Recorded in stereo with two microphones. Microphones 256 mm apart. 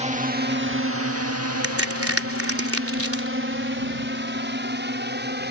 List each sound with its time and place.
0.0 s a drone: 25° right (ahead or behind); by 5.5 s 40° right (ahead or behind)
1.6 s a crack: 60° right (ahead or behind)